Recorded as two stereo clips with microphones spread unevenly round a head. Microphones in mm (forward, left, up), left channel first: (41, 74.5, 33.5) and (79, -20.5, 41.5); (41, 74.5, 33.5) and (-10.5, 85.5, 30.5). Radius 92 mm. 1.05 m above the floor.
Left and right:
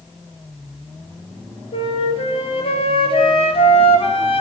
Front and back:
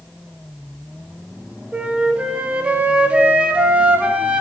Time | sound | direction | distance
1.7 | a flute | 105° left | 1.9 m